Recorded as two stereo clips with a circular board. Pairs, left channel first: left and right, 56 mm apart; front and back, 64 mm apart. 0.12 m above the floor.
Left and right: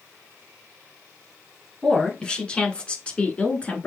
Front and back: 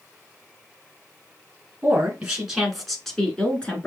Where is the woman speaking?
140° left, 1.4 m; by 3.9 s 50° left, 1.5 m.